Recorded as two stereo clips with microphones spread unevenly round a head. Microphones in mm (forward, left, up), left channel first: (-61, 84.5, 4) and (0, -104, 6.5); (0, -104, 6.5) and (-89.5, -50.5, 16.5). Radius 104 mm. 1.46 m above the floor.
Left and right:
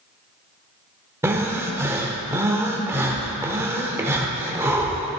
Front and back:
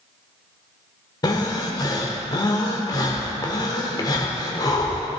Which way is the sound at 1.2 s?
5° right.